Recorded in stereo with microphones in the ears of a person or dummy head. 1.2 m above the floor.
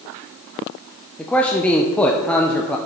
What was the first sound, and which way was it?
A man speaking, 10° left (ahead or behind).